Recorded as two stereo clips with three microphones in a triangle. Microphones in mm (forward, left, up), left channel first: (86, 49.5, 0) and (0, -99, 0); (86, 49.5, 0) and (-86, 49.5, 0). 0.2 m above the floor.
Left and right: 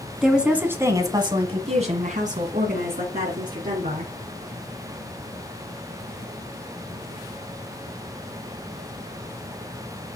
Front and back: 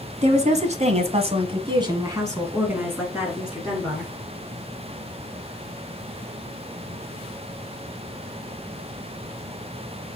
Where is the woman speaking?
155° left, 1.7 m; by 4.1 s 90° right, 3 m.